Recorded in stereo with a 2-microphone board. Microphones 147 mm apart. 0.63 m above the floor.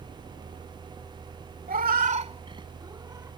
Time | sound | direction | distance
1.7 | a cat meowing | 80° right | ?